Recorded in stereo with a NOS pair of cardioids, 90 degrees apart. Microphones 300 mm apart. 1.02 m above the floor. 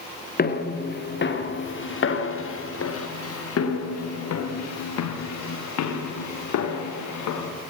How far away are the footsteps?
About 5 m.